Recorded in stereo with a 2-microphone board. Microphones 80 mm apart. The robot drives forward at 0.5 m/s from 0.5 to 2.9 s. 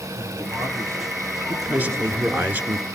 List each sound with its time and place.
0.1 s a man speaking: 40° right (ahead or behind), 5 m; by 2.5 s 35° right (ahead or behind), 5.5 m
1.5 s a man speaking: 20° right (ahead or behind), 1.4 m; by 2.9 s 25° right (ahead or behind), 1.3 m